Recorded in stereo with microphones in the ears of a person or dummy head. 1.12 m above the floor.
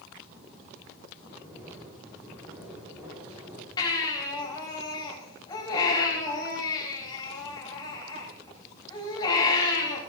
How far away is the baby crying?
About 5 m.